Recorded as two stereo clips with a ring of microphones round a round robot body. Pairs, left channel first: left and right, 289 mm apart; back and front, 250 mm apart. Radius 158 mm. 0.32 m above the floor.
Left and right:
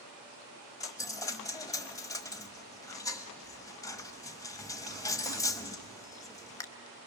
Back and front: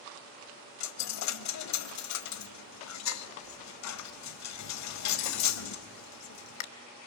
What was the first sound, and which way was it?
A dropped coin, 170° left.